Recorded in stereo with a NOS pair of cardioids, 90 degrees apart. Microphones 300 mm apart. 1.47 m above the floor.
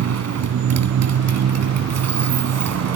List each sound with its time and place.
0.0 s a motorcycle: 60° right